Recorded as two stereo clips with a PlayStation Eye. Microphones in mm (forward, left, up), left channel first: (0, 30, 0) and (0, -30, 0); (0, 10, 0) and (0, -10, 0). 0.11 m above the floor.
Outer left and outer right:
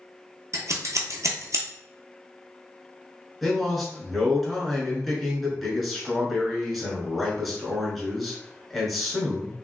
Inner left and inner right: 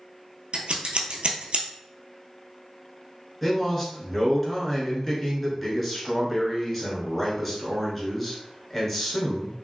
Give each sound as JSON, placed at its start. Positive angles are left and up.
{"t": 0.5, "sound": "scissors", "side_deg": -65, "distance_m": 0.7}
{"t": 3.4, "sound": "a man speaking", "side_deg": 0, "distance_m": 1.1}